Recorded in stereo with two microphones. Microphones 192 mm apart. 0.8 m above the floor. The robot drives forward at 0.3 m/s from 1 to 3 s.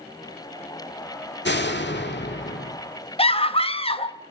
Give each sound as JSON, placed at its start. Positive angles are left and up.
{"t": 1.4, "sound": "a door slam", "side_deg": 75, "distance_m": 1.5}
{"t": 3.2, "sound": "a scream", "side_deg": 30, "distance_m": 1.0}